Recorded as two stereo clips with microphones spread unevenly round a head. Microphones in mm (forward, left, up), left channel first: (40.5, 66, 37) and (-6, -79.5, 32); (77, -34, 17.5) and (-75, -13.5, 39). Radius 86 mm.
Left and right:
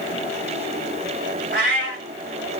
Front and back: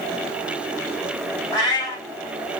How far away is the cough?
I don't hear a cough.